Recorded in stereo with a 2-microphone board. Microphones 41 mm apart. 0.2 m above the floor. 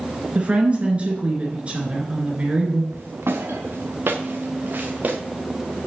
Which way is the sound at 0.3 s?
30° right (ahead or behind).